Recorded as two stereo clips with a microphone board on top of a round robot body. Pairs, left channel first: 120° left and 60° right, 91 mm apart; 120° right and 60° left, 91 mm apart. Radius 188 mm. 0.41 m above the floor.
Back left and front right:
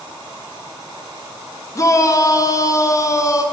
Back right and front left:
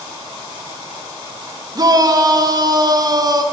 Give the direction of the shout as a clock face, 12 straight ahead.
9 o'clock.